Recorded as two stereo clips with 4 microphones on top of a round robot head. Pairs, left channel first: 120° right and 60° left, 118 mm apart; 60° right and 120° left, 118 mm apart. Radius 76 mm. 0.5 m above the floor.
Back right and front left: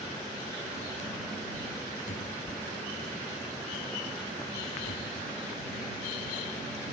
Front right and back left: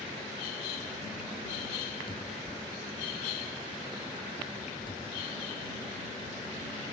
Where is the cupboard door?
110° right.